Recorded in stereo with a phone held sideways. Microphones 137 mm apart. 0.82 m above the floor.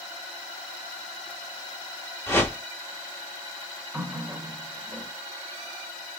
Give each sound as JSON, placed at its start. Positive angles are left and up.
{"t": 2.3, "sound": "a whoosh", "side_deg": 15, "distance_m": 1.3}
{"t": 3.9, "sound": "a running tap", "side_deg": -10, "distance_m": 1.0}